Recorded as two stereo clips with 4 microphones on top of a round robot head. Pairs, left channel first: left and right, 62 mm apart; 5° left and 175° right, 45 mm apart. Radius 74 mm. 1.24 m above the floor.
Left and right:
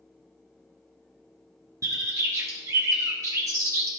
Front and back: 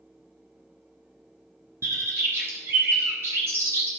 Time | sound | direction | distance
1.8 | a bird | 135° right | 1.5 m